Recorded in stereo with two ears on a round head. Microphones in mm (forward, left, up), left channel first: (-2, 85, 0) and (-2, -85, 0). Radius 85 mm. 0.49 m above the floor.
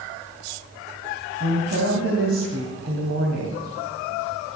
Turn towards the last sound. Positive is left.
turn(degrees=-70)  # may be behind; listen again after turning